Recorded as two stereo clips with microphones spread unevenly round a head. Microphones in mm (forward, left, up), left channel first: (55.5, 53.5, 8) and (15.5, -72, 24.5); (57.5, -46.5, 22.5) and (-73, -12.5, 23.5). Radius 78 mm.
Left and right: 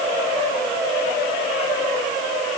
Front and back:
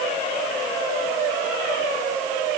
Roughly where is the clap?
No clap in this recording.